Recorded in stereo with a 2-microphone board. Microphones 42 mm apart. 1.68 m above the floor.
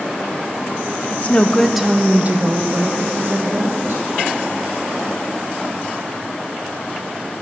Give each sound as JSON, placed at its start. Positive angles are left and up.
{"t": 1.1, "sound": "a woman speaking", "side_deg": 40, "distance_m": 0.7}